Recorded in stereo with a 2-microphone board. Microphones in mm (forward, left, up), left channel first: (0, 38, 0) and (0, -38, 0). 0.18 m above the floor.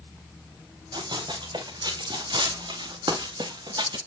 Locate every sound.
0.9 s running footsteps: 85° right, 3.5 m; by 4.0 s 80° right, 2 m